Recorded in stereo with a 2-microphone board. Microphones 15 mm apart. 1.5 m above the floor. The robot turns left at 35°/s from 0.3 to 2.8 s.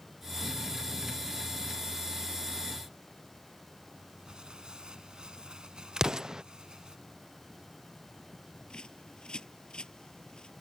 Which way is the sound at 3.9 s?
60° right (ahead or behind).